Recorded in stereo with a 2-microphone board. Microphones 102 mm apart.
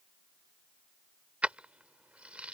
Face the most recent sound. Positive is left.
turn(degrees=-15)  # may be behind; listen again after turning